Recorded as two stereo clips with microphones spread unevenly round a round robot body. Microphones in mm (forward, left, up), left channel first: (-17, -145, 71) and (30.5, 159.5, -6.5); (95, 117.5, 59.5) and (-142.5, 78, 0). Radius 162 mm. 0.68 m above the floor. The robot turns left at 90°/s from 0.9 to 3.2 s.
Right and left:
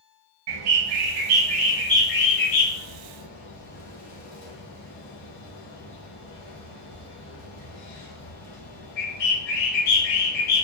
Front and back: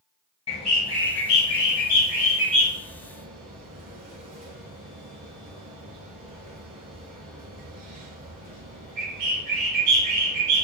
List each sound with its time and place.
0.5 s a bird: 70° left, 1.6 m; by 10.7 s 135° right, 1.6 m